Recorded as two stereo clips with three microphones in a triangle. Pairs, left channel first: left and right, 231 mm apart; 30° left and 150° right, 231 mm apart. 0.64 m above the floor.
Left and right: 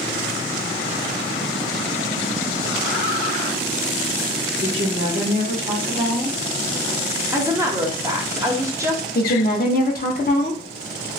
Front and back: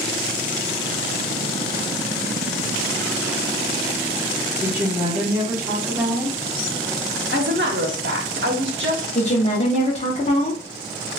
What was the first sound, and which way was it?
A woman speaking, 80° right.